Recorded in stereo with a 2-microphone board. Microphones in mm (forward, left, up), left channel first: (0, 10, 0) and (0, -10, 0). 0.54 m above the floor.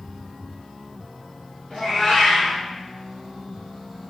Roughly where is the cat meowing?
Left.